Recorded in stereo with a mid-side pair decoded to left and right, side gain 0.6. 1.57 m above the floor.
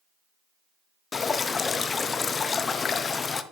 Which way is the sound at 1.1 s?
30° left.